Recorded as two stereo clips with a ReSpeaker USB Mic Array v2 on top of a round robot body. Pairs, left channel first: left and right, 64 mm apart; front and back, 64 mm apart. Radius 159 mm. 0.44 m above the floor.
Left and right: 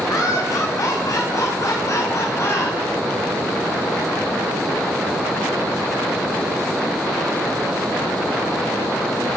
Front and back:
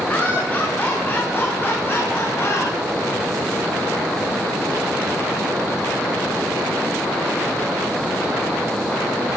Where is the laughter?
65° left, 6 m; by 2.8 s 45° left, 4 m.